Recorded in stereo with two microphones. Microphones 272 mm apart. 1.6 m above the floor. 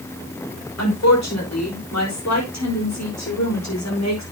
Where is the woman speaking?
75° left (ahead or behind), 5 m.